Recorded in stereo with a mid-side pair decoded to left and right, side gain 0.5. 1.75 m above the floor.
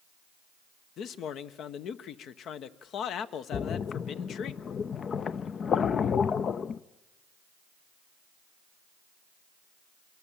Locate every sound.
1.0 s a man speaking: 60° left, 1.1 m
3.5 s a splash: 45° left, 0.6 m